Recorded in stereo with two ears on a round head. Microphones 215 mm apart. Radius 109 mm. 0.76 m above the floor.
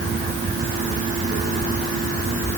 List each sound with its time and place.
Only background noise.